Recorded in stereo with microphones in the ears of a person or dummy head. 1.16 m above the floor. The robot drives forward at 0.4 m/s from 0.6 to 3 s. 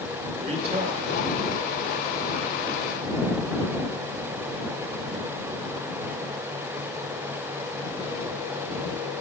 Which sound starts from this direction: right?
A man speaking, at 0.4 s.